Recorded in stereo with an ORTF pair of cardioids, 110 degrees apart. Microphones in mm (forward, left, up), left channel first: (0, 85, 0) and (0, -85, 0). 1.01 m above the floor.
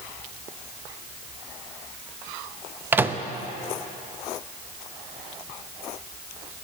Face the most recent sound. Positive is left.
turn(degrees=-10)